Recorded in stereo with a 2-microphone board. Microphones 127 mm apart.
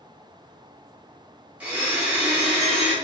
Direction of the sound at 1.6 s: 10° right (ahead or behind).